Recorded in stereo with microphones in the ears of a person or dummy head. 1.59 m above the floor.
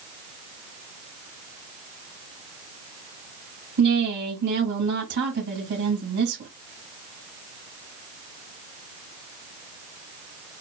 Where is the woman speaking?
60° right (ahead or behind), 2.5 m.